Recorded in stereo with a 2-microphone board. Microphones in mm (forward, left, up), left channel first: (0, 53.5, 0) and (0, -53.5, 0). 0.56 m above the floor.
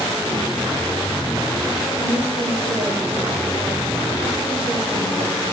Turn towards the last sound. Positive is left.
turn(degrees=-65)  # may be behind; listen again after turning